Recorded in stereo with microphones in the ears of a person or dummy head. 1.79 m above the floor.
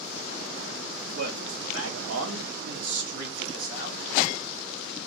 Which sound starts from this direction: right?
A man speaking, at 1.1 s.